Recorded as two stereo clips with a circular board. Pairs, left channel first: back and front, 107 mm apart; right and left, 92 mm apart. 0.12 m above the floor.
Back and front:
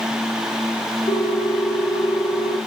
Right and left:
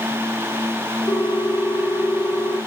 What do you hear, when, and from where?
1.1 s a ringtone: 145° right, 2.5 m